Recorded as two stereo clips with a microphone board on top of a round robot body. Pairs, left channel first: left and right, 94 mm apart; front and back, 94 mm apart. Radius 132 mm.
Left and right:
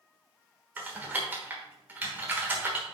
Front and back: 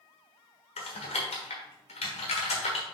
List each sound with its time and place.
0.8 s typing on a keyboard: 15° right, 1.2 m